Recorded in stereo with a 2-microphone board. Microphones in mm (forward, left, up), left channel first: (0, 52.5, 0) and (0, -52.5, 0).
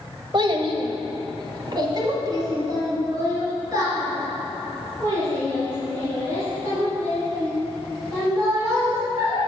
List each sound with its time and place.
0.3 s a child speaking: 45° right (ahead or behind), 0.9 m; by 9.4 s 25° right (ahead or behind), 8 m